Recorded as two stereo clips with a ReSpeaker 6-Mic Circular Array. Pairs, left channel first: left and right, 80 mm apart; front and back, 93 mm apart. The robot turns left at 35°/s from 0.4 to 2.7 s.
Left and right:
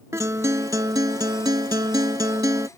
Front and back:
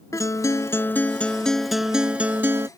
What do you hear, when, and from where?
0.1 s a guitar: 45° right; by 2.7 s 125° right